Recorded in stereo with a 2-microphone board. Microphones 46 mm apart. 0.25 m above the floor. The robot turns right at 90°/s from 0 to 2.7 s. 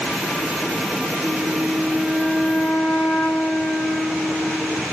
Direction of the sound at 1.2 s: 105° right.